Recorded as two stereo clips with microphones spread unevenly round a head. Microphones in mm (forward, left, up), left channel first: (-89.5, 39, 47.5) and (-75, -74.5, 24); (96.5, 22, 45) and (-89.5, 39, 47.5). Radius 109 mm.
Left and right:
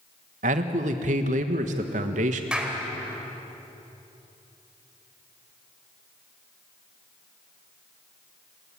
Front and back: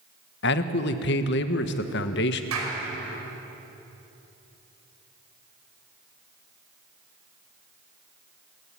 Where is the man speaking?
45° right, 1.3 m.